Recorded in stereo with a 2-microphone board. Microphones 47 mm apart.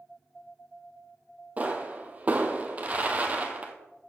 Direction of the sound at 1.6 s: 30° right (ahead or behind).